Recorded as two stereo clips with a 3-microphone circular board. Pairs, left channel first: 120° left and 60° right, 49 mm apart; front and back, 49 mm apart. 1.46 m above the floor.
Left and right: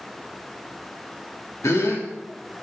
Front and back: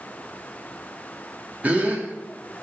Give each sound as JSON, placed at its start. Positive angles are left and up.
{"t": 1.6, "sound": "a gasp", "azimuth_deg": 125, "distance_m": 2.0}